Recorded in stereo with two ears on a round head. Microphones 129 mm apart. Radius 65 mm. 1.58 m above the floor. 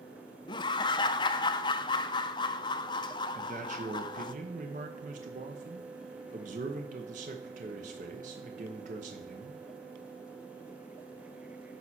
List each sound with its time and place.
0.5 s laughter: 30° left (ahead or behind), 0.6 m
3.4 s a man speaking: 55° right (ahead or behind), 1.0 m